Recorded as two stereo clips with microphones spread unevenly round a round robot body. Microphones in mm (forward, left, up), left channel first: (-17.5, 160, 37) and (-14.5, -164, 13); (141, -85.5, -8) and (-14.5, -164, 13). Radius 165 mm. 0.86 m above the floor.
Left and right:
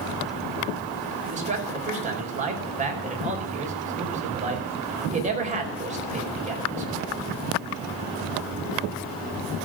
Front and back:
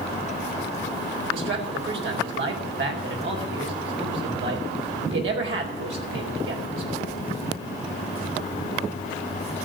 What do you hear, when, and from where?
1.3 s a man speaking: 155° right, 4.5 m